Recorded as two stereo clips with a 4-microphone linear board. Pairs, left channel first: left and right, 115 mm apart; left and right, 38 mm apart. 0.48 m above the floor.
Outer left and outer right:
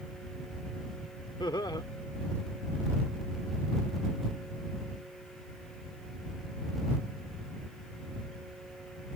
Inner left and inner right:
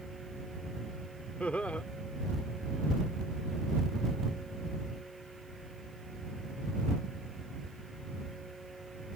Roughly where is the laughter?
Left.